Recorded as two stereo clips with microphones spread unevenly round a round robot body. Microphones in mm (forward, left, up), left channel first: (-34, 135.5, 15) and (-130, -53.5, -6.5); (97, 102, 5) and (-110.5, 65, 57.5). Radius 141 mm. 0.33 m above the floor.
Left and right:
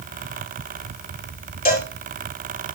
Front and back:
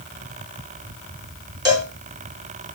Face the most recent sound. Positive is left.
turn(degrees=115)